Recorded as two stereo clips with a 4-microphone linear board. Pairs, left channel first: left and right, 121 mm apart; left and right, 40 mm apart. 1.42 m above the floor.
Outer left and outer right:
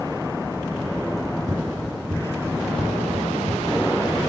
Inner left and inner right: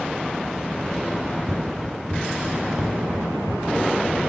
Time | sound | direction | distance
1.2 | running footsteps | centre (ahead or behind) | 4 m